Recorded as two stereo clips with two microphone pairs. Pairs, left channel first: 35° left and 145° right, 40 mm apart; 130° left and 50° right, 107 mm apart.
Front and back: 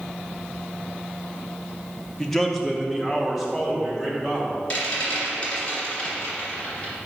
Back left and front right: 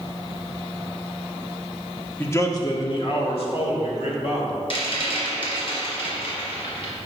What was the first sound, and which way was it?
A man speaking, 100° left.